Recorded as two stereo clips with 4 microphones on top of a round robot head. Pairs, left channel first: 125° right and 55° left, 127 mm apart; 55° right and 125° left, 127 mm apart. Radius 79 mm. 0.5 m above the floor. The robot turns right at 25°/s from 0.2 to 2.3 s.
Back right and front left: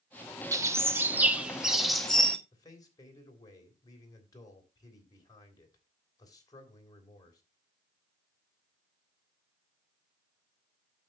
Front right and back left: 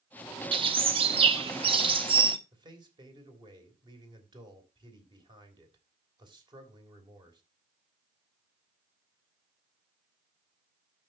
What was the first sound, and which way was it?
A bird, 110° left.